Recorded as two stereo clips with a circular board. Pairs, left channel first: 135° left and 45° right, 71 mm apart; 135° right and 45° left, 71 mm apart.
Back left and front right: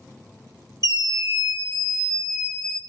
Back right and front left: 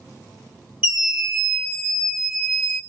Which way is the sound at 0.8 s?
25° right.